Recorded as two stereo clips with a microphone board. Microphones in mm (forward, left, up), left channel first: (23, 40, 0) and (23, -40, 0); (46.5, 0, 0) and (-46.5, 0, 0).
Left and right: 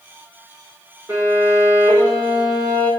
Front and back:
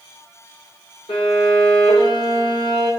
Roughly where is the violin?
Ahead right.